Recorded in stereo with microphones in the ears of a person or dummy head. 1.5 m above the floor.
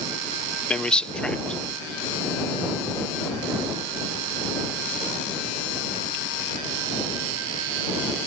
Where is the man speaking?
5° left (ahead or behind).